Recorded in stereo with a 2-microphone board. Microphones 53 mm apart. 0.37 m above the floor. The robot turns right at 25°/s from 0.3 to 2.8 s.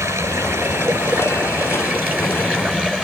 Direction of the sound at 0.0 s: 85° right.